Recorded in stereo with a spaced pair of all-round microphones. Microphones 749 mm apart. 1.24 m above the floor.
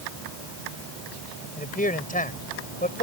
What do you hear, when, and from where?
1.6 s a man speaking: 10° left (ahead or behind)